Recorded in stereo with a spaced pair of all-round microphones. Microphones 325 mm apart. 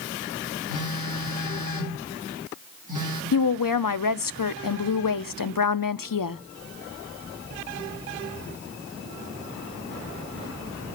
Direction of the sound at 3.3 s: 90° left.